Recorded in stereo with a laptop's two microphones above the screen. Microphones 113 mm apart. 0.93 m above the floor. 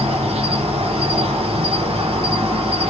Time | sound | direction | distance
0.0 | an insect | 60° right (ahead or behind) | 0.8 m